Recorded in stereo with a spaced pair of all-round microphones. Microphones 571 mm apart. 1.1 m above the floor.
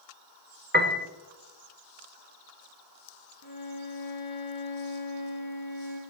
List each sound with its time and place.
0.7 s a piano: 20° right (ahead or behind), 0.8 m
3.4 s a violin: 45° left (ahead or behind), 4.5 m